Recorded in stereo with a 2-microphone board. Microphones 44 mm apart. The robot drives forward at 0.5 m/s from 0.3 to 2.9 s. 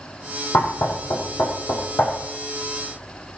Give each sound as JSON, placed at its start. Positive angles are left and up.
{"t": 0.5, "sound": "knocking", "side_deg": 75, "distance_m": 3.5}